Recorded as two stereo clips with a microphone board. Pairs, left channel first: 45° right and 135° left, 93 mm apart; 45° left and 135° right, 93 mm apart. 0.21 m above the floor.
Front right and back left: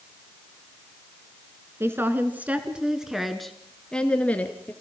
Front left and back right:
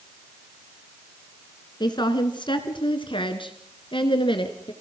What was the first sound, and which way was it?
A woman speaking, 75° left.